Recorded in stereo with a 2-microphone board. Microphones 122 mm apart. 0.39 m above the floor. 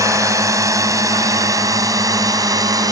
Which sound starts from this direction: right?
A drone, at 0.0 s.